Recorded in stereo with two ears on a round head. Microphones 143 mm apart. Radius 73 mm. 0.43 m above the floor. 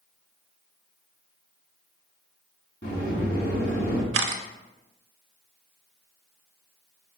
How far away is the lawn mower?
No lawn mower in this recording.